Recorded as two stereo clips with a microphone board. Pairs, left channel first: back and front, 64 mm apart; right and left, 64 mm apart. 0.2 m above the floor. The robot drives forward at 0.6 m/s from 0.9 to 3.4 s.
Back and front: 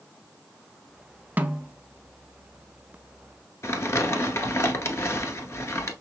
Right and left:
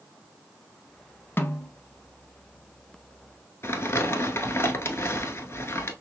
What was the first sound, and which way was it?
A snare drum, 50° right.